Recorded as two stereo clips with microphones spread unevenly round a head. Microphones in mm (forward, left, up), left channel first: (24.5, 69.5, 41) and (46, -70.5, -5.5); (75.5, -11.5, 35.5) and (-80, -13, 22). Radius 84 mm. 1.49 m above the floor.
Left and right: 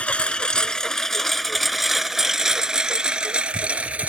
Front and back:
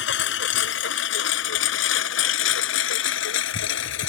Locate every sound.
0.0 s a lawn mower: 20° left; by 4.1 s straight ahead